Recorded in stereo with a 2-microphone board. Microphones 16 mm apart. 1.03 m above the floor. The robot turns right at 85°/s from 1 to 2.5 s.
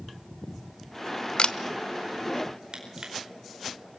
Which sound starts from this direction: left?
A camera shutter, at 1.4 s.